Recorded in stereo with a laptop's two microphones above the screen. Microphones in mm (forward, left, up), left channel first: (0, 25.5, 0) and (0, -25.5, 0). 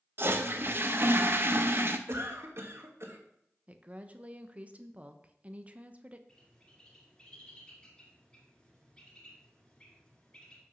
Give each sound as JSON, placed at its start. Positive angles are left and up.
{"t": 0.2, "sound": "a toilet flushing", "side_deg": -50, "distance_m": 0.6}
{"t": 2.1, "sound": "a cough", "side_deg": -60, "distance_m": 1.4}
{"t": 3.7, "sound": "a woman speaking", "side_deg": -25, "distance_m": 0.8}
{"t": 6.3, "sound": "a bird", "side_deg": 20, "distance_m": 2.5}